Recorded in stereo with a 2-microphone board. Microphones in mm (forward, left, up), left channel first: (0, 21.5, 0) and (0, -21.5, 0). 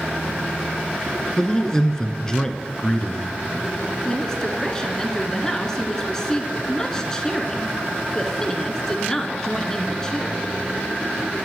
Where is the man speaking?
15° left (ahead or behind), 1.1 m.